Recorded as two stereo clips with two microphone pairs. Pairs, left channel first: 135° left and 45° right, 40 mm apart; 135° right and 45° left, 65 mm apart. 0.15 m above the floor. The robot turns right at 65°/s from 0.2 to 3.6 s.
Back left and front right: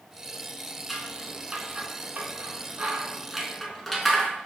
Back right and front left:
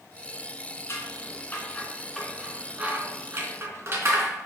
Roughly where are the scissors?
Behind right.